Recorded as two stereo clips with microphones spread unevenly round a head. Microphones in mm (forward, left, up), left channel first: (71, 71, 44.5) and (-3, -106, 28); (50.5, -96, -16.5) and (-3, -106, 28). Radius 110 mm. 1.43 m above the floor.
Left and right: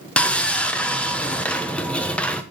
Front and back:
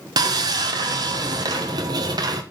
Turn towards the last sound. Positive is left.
turn(degrees=150)